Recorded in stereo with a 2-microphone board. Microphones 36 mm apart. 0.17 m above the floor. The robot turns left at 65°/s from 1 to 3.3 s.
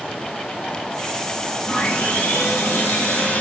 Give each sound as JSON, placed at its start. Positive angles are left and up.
{"t": 1.7, "sound": "sawing", "azimuth_deg": 145, "distance_m": 8.0}